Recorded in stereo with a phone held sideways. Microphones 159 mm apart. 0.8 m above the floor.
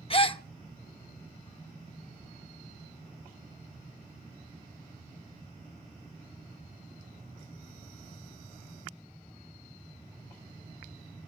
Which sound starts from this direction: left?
A gasp, at 0.1 s.